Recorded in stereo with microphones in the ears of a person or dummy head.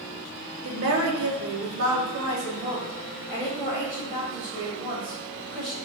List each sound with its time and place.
0.6 s a woman speaking: 60° right (ahead or behind), 1.0 m; by 5.8 s 30° right (ahead or behind), 3 m